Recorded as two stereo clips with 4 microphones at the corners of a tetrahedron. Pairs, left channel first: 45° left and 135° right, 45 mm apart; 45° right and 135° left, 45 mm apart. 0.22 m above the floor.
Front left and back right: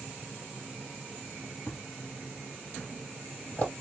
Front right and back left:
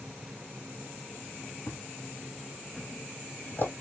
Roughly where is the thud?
Ahead.